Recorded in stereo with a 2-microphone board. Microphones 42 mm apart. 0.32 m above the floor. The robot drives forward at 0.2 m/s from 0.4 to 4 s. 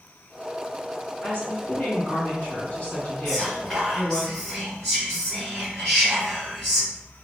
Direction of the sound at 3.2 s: 15° left (ahead or behind).